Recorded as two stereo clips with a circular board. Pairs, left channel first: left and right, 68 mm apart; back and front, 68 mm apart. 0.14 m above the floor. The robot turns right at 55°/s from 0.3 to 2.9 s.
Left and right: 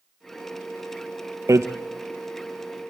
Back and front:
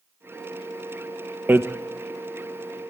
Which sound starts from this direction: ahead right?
Hammering, at 1.5 s.